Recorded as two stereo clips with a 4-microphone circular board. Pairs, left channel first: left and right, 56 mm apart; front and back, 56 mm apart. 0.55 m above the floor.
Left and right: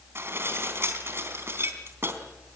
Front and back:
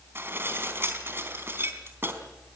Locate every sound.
0.1 s dishes clattering: 130° right, 3.5 m